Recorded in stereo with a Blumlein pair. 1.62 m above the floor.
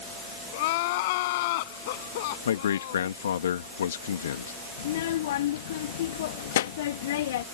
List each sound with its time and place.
0.5 s crying: 50° left
2.5 s a man speaking: 65° left
4.8 s a child speaking: 55° left